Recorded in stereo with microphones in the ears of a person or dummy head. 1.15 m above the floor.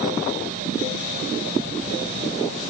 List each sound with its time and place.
Only background noise.